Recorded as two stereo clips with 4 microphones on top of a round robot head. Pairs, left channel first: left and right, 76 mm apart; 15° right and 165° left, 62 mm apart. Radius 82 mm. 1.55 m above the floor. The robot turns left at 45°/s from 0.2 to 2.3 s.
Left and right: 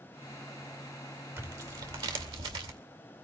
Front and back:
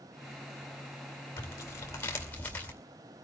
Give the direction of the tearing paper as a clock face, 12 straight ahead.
1 o'clock.